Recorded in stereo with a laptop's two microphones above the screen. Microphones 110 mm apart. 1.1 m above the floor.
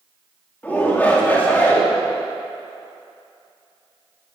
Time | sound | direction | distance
0.6 | a shout | 15° left (ahead or behind) | 3 m